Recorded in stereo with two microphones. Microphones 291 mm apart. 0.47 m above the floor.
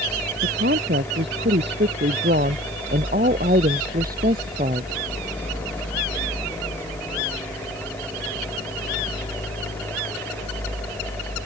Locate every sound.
0.4 s a woman speaking: 40° right (ahead or behind); by 4.9 s 30° right (ahead or behind)